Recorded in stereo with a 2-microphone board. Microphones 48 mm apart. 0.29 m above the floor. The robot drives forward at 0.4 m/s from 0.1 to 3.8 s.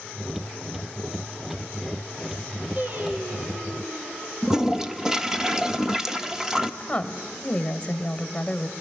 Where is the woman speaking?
20° left (ahead or behind), 1.1 m.